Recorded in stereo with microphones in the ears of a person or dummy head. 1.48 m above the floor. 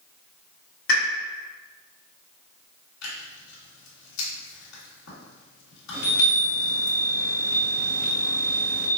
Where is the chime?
75° left (ahead or behind), 1.8 m.